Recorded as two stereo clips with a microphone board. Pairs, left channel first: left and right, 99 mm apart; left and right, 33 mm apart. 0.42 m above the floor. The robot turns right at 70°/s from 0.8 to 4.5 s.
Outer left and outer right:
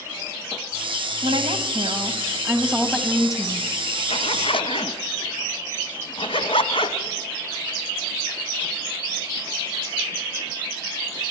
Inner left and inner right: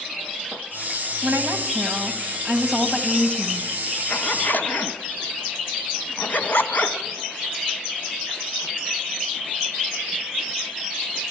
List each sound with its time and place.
1.2 s a woman speaking: 110° right, 2.5 m; by 3.7 s 65° left, 2.5 m
4.1 s a zipper: 80° left, 1.6 m; by 7.0 s 65° left (ahead or behind), 1.6 m